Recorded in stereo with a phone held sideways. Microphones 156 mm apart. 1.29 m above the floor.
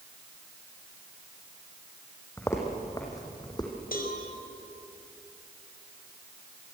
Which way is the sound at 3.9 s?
75° left (ahead or behind).